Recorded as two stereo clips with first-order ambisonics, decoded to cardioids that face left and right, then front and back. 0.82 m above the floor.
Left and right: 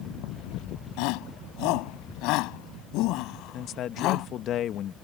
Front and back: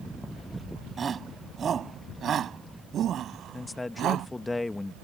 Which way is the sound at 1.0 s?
110° left.